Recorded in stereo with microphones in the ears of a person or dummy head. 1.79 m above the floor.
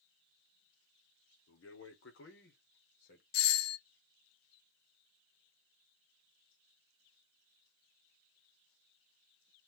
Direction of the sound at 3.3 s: 60° left (ahead or behind).